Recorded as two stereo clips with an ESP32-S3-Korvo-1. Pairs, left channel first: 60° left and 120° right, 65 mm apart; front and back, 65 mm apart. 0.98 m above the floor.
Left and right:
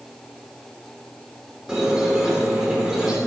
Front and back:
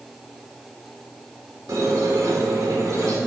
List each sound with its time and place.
1.7 s a squeak: 160° left, 1.3 m